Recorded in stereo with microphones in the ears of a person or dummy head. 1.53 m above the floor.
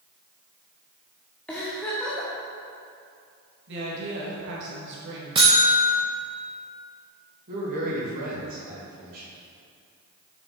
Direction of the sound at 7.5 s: 45° right (ahead or behind).